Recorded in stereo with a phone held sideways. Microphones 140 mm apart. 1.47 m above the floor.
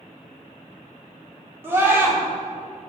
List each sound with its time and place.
1.6 s a scream: 15° right (ahead or behind), 4 m